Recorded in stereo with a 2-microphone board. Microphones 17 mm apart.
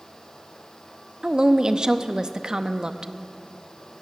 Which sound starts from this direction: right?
A woman speaking, at 1.2 s.